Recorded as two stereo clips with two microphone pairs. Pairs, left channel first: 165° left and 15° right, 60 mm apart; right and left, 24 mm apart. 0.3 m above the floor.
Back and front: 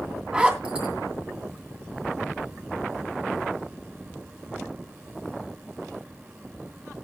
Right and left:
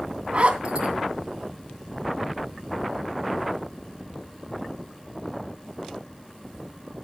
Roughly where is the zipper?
Ahead left.